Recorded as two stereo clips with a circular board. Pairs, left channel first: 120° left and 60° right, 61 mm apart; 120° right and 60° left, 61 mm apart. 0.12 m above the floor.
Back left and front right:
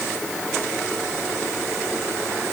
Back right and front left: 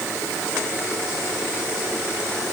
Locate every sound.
Only background noise.